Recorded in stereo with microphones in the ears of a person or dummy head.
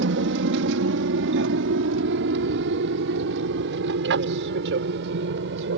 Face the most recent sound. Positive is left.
turn(degrees=-65)  # may be behind; listen again after turning